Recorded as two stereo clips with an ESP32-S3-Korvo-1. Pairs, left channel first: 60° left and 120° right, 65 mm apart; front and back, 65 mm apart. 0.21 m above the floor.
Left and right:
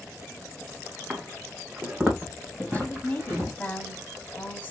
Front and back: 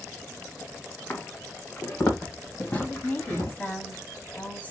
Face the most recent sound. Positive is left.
turn(degrees=35)